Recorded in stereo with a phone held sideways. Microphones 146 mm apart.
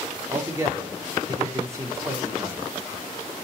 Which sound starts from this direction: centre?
A man speaking, at 0.3 s.